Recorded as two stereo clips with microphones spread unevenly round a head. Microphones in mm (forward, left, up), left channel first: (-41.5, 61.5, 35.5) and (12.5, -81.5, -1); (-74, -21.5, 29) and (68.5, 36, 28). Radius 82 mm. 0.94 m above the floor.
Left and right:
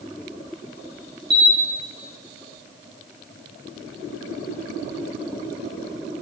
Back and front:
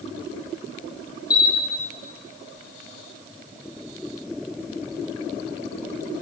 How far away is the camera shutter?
About 1.3 m.